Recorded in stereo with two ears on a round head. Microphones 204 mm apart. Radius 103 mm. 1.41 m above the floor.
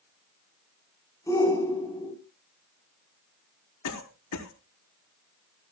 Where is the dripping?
No dripping in this recording.